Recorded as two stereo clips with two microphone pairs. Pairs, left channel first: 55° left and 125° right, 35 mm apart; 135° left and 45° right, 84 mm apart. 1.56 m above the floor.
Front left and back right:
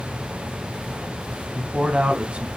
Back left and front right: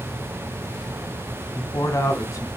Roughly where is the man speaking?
Behind.